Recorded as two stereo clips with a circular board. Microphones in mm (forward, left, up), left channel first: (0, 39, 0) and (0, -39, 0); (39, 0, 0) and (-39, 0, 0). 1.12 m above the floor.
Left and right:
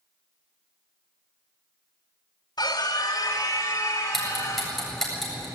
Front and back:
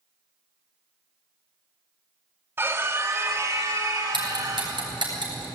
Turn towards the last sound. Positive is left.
turn(degrees=180)